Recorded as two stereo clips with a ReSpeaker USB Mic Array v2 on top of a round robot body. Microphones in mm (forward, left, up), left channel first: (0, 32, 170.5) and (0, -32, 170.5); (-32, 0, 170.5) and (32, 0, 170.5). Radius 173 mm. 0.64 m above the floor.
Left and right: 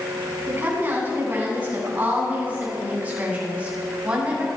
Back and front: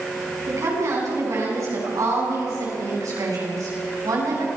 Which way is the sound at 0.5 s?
30° right.